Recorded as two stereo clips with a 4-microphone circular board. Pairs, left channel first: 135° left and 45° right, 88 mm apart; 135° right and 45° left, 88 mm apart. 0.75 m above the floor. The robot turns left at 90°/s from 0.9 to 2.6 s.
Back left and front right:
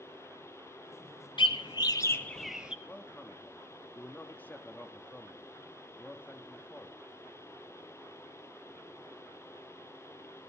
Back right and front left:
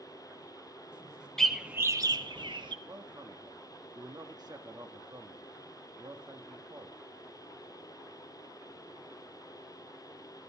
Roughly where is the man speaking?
Left.